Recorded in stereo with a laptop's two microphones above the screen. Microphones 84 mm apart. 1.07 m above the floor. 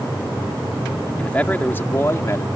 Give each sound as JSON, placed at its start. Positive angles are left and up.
{"t": 1.2, "sound": "a man speaking", "side_deg": 15}